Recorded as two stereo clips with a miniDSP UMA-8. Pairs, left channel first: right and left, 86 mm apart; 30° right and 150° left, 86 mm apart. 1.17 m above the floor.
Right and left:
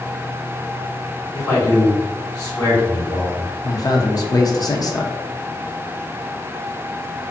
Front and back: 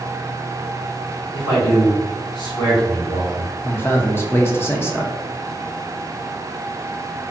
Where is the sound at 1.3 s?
40° right, 1.7 m.